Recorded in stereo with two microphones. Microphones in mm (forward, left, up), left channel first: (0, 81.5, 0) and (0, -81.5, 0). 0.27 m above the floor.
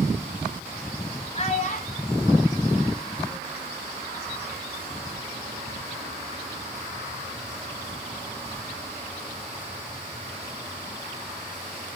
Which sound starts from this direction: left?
A child speaking, at 1.4 s.